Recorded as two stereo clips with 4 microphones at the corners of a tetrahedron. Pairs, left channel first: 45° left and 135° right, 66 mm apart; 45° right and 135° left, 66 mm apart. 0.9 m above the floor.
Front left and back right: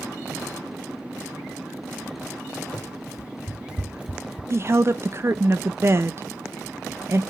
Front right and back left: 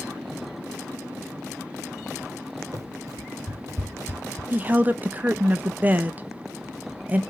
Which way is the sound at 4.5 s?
170° right.